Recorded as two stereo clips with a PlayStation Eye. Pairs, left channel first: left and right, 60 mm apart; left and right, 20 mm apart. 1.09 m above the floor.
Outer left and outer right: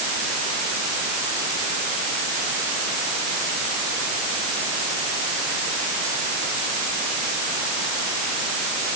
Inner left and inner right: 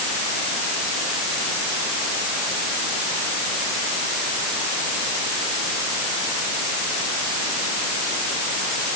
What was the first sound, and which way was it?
Only background noise.